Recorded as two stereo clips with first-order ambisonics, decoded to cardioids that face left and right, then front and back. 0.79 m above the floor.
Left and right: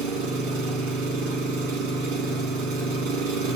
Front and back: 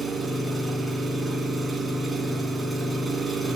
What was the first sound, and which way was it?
An engine running, 95° right.